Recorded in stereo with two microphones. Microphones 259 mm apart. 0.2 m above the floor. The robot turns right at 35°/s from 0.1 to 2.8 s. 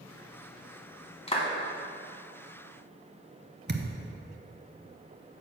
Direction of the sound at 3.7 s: 40° right (ahead or behind).